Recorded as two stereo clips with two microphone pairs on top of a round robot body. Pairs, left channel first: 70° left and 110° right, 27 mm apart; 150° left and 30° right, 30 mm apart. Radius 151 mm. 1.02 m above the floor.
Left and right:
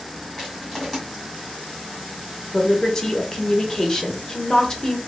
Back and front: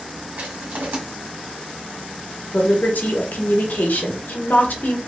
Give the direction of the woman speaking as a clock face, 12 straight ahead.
7 o'clock.